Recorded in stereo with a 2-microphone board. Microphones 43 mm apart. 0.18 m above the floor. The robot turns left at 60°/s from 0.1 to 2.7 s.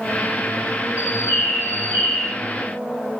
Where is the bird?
95° left, 2 m; by 2.3 s 10° left, 2 m.